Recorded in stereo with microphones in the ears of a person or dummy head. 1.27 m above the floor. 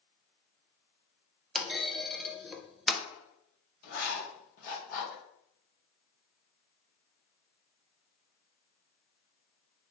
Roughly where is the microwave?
I don't hear a microwave.